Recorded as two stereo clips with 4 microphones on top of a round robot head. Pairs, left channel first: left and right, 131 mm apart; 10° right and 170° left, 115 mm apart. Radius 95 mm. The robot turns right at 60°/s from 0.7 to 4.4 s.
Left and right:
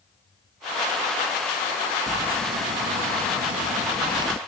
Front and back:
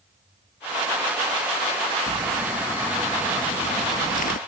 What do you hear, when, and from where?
2.1 s crumpling: 155° right; by 4.4 s 15° right